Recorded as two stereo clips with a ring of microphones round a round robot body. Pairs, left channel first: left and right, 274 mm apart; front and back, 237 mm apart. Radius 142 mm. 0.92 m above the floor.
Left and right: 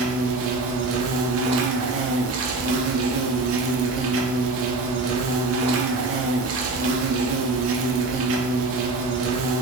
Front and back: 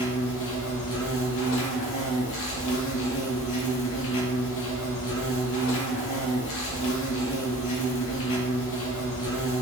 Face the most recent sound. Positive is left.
turn(degrees=-45)